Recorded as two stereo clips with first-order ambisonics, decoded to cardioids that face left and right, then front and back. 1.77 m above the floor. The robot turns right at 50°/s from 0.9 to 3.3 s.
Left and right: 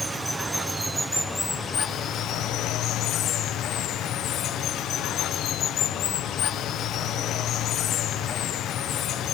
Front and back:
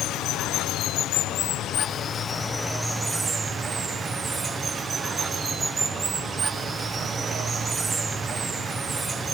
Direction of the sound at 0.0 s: 5° right.